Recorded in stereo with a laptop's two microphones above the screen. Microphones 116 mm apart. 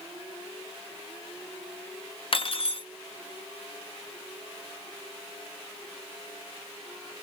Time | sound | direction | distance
2.3 | cutlery clinking | 55° left (ahead or behind) | 0.5 m